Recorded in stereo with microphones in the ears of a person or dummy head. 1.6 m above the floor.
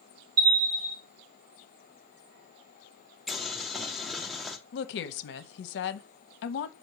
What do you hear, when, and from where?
0.4 s a bell: 60° right (ahead or behind), 2.5 m
3.3 s boiling: centre (ahead or behind), 0.7 m
4.7 s a woman speaking: 60° left (ahead or behind), 0.7 m